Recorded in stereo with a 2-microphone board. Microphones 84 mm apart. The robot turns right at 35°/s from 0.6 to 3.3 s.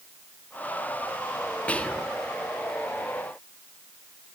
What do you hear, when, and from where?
1.7 s whispering: 20° left (ahead or behind), 0.5 m; by 2.1 s 15° left (ahead or behind), 0.5 m